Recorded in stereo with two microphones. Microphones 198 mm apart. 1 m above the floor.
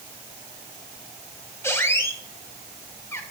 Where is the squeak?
15° left (ahead or behind), 0.7 m.